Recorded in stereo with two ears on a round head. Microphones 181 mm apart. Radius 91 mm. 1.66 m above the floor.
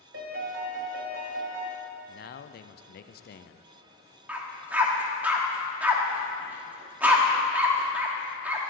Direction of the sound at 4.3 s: 10° right (ahead or behind).